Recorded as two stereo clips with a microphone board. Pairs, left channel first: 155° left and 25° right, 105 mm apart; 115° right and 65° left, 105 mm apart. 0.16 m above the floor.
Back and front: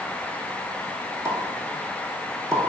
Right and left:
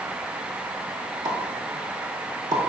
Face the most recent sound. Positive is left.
turn(degrees=30)